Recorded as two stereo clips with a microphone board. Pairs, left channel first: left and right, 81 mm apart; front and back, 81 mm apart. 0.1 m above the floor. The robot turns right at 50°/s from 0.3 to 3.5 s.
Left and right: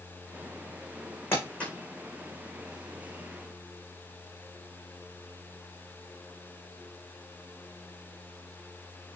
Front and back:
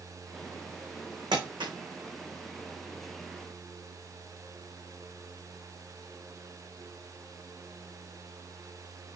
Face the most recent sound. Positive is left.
turn(degrees=-100)